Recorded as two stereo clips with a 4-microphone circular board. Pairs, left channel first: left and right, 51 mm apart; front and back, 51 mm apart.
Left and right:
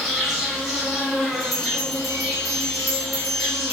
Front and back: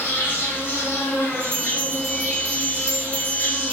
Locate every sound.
0.0 s an insect: straight ahead, 1.2 m
1.4 s a bell: straight behind, 1.3 m